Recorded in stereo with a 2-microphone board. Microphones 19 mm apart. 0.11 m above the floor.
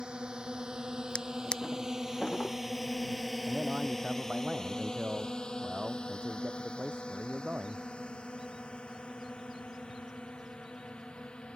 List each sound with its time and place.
0.0 s a drone: 55° right (ahead or behind); by 11.6 s 80° left
1.1 s a drawer: 55° left (ahead or behind)
3.5 s a man speaking: 75° right (ahead or behind)